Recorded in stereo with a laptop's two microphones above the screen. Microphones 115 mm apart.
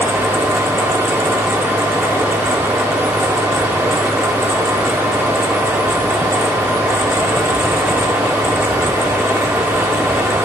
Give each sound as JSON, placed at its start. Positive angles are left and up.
{"t": 0.0, "sound": "a fan", "side_deg": -20, "distance_m": 0.8}